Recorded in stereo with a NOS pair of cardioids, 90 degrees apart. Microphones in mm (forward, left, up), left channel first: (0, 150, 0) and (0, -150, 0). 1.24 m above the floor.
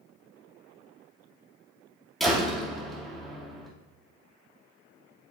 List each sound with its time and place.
2.2 s a door slam: straight ahead, 2.5 m